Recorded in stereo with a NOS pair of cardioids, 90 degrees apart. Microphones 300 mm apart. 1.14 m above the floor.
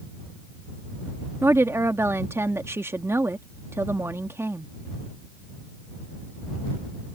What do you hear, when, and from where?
1.4 s a woman speaking: 10° right